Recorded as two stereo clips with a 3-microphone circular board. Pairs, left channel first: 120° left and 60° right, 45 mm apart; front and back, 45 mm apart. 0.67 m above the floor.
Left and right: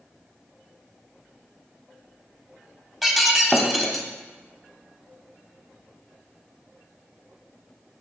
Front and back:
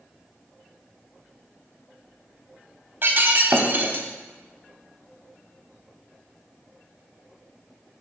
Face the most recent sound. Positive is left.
turn(degrees=-150)